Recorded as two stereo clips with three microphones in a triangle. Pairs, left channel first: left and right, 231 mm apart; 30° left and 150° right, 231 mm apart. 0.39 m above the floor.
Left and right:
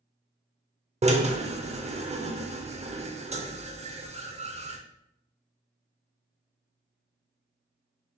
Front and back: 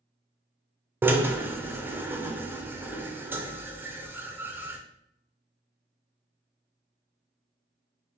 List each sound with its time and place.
1.0 s a drill: 75° right, 0.5 m